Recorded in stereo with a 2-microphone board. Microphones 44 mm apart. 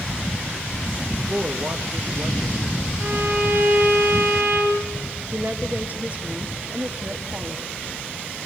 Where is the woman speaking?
35° right (ahead or behind), 2 m.